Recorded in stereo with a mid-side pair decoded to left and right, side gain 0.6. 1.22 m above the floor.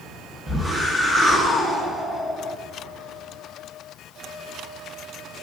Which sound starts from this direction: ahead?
A whoosh, at 0.5 s.